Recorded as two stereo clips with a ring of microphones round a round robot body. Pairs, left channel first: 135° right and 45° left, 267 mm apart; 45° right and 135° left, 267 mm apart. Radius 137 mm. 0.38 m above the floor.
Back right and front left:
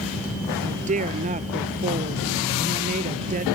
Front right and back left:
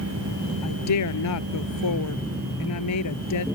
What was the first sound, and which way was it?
A woman speaking, 20° right.